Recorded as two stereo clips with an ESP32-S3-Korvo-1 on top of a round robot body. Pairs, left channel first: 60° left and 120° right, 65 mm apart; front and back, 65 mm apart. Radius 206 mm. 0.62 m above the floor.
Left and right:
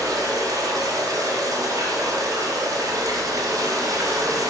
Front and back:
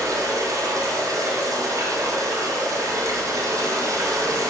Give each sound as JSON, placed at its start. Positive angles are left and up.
{"t": 0.0, "sound": "running water", "azimuth_deg": -145, "distance_m": 1.3}